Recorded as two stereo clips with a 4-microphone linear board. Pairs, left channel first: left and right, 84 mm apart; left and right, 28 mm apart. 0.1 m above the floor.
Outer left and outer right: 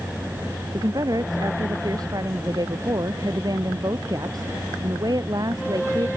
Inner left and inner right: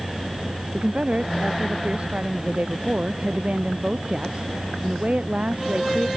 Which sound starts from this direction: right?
A woman speaking, at 0.7 s.